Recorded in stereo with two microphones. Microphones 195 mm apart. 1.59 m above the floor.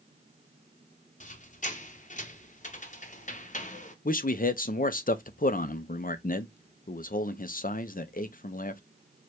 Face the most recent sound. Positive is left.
turn(degrees=50)  # may be behind; listen again after turning